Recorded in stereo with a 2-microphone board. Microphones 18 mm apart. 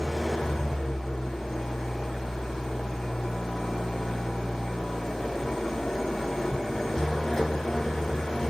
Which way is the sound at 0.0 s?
25° left (ahead or behind).